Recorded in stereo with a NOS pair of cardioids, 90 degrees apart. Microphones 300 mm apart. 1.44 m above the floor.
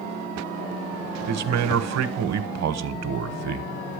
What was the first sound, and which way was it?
A man speaking, 60° right.